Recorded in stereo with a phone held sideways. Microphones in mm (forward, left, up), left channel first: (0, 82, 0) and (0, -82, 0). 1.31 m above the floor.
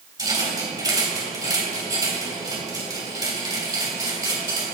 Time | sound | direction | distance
0.2 | a rattle | 25° right (ahead or behind) | 2.5 m